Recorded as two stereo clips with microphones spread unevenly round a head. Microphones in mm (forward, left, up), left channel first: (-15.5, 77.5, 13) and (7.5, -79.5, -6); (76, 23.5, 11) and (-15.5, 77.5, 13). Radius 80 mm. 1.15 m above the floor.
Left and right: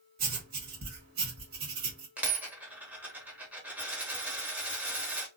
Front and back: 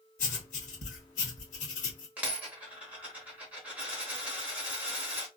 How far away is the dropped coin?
About 0.9 m.